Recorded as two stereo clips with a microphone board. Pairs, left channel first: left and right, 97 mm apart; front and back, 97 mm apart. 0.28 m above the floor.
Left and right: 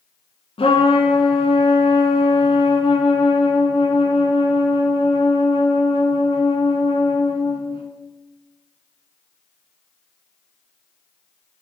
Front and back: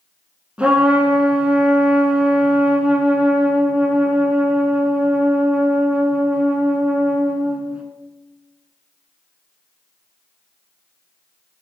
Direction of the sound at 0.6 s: 105° left.